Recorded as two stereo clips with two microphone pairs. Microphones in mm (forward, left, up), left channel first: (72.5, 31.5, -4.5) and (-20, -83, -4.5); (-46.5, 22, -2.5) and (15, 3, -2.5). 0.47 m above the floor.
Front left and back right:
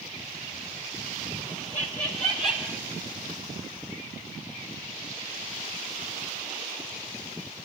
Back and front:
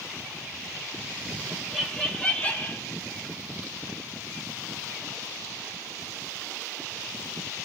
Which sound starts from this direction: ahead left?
Laughter, at 1.5 s.